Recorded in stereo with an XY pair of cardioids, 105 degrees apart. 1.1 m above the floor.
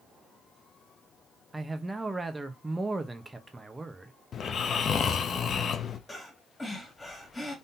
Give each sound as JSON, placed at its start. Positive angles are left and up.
{"t": 1.5, "sound": "a man speaking", "azimuth_deg": -15, "distance_m": 0.9}
{"t": 4.3, "sound": "snoring", "azimuth_deg": 55, "distance_m": 0.6}
{"t": 6.1, "sound": "breathing", "azimuth_deg": 20, "distance_m": 1.9}